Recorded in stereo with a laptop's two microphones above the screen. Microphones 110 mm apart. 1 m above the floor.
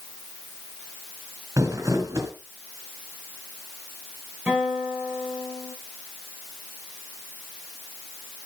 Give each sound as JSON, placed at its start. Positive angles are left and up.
{"t": 1.6, "sound": "crumpling", "side_deg": -30, "distance_m": 2.5}
{"t": 4.5, "sound": "a guitar", "side_deg": -10, "distance_m": 4.5}